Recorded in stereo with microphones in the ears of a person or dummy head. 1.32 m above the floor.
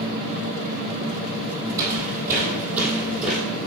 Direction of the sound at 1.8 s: 15° right (ahead or behind).